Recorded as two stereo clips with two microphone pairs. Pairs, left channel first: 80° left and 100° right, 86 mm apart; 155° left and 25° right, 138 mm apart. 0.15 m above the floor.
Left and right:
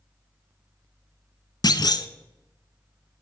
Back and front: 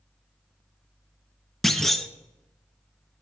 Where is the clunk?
65° left, 0.7 m.